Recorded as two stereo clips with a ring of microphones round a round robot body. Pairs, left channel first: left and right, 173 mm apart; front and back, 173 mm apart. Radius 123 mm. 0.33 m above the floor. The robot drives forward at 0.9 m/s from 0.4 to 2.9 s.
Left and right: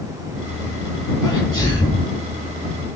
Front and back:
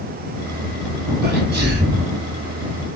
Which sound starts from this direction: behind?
A sneeze, at 1.2 s.